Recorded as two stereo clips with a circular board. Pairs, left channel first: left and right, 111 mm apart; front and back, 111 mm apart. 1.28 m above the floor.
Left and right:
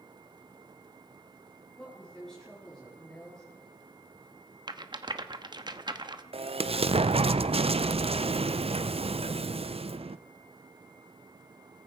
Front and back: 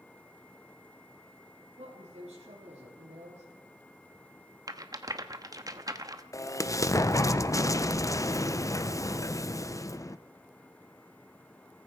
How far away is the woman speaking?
About 3.5 m.